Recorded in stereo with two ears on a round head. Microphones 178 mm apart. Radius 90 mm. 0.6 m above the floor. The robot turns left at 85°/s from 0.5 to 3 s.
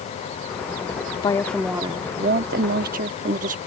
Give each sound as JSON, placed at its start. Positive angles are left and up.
{"t": 1.2, "sound": "a woman speaking", "azimuth_deg": 30}